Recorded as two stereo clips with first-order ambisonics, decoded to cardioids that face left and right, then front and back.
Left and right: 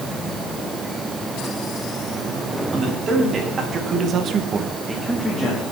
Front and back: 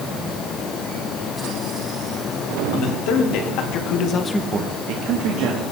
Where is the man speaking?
20° right, 3 m; by 5.6 s 175° left, 2.0 m.